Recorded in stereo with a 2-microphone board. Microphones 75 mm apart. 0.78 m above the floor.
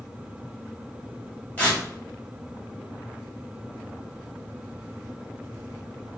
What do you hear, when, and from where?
1.6 s tearing paper: 25° left (ahead or behind), 2.0 m